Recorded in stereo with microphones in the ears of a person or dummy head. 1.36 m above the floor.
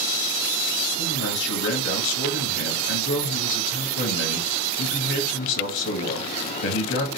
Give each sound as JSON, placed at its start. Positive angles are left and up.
{"t": 1.0, "sound": "a man speaking", "side_deg": 60, "distance_m": 1.2}